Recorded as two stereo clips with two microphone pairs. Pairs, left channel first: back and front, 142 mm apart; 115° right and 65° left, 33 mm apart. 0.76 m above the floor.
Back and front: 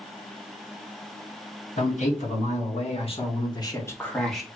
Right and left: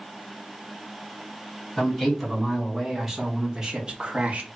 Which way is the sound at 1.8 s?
160° left.